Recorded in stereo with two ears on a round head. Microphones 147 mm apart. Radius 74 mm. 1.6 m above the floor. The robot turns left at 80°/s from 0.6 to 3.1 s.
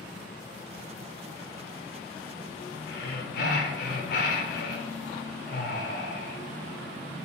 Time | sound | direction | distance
2.9 | breathing | 75° left (ahead or behind) | 0.7 m